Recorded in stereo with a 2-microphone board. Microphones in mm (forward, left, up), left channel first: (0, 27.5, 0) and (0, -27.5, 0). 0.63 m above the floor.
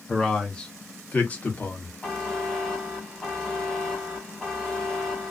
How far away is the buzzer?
About 1.3 m.